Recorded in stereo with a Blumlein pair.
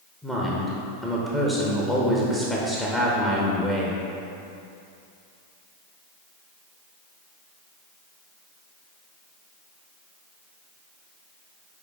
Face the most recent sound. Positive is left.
turn(degrees=5)